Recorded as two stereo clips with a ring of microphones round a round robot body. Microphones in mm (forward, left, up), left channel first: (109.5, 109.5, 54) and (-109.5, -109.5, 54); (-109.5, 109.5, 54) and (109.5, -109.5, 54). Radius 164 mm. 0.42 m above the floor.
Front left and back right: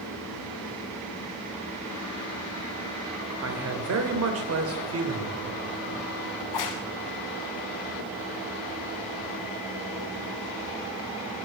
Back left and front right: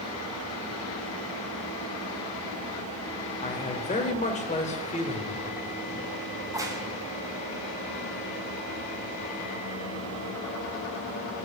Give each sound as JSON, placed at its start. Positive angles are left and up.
{"t": 3.4, "sound": "a man speaking", "azimuth_deg": -160, "distance_m": 2.5}
{"t": 6.4, "sound": "a crack", "azimuth_deg": 35, "distance_m": 1.8}